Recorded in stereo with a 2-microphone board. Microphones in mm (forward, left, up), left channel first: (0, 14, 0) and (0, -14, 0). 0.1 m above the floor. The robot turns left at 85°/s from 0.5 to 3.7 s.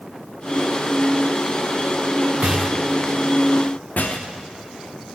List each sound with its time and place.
2.4 s a rattle: 45° right (ahead or behind), 1.4 m; by 5.2 s 60° left (ahead or behind), 1.4 m